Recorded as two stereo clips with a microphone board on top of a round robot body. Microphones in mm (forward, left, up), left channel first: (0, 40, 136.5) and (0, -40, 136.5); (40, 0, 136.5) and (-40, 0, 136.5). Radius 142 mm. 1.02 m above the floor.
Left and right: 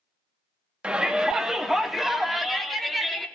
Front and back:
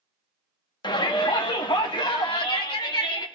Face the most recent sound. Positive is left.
turn(degrees=5)